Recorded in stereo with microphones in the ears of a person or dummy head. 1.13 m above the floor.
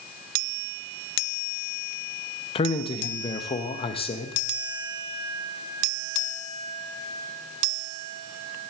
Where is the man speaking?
30° left (ahead or behind), 0.9 m.